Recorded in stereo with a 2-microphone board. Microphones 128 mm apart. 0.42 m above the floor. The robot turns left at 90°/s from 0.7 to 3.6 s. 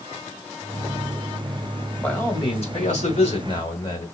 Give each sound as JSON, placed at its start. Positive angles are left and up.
{"t": 2.0, "sound": "a man speaking", "azimuth_deg": 175, "distance_m": 1.6}